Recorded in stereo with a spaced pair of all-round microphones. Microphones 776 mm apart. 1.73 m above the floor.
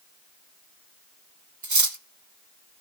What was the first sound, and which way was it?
Cutlery clinking, 25° right (ahead or behind).